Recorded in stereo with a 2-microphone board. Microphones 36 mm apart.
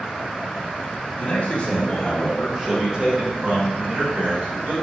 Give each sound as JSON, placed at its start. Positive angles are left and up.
{"t": 1.2, "sound": "a man speaking", "side_deg": 45, "distance_m": 1.3}